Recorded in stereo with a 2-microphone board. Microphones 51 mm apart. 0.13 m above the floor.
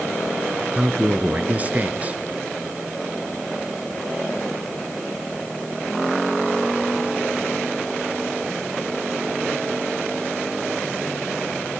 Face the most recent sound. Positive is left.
turn(degrees=-30)  # may be behind; listen again after turning